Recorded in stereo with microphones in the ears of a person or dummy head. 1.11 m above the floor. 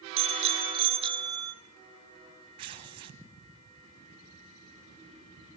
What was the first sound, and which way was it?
A bicycle bell, 40° right (ahead or behind).